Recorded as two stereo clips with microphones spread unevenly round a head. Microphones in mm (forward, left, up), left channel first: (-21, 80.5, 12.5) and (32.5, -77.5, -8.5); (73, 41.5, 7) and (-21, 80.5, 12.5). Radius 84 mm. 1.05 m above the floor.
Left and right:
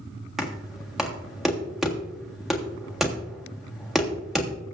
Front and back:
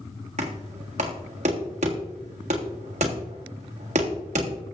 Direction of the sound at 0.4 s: 160° right.